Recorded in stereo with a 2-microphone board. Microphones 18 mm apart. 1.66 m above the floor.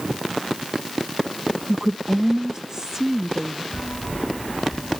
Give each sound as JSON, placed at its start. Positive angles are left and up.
{"t": 1.7, "sound": "a woman speaking", "side_deg": -45}
{"t": 3.7, "sound": "a bell", "side_deg": 35}